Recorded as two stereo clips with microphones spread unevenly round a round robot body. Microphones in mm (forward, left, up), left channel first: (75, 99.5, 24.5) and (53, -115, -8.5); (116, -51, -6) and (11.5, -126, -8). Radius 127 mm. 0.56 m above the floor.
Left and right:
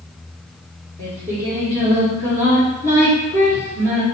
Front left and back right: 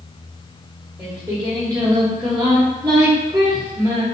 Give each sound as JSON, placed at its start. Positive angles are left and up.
{"t": 1.0, "sound": "singing", "azimuth_deg": 170, "distance_m": 1.0}